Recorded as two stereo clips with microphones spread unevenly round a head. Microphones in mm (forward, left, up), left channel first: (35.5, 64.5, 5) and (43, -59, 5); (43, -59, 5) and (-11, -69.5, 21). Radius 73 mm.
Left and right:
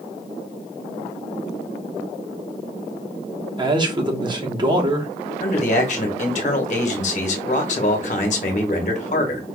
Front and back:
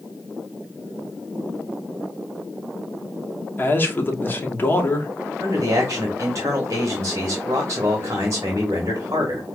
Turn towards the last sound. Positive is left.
turn(degrees=130)